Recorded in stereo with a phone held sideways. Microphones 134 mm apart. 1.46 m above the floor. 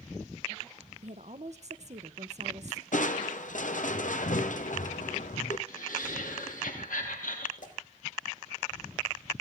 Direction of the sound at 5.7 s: 85° left.